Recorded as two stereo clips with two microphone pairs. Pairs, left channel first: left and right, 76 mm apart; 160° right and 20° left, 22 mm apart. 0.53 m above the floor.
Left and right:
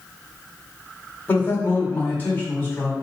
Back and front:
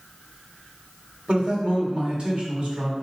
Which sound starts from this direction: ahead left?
A man speaking, at 1.3 s.